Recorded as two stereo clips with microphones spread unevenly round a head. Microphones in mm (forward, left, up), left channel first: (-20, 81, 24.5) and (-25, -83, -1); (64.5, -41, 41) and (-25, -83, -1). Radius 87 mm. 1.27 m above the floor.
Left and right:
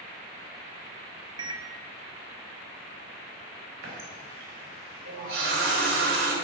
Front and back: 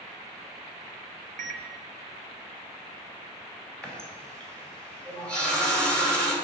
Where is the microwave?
160° right, 0.7 m.